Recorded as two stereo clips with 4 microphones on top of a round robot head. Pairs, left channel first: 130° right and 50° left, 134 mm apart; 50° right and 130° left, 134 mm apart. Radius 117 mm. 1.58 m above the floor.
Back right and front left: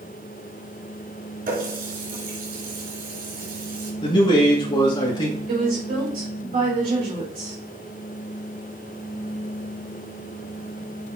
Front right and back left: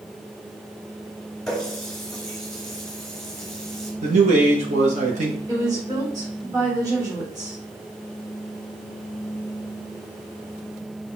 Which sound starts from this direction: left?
A woman speaking, at 5.5 s.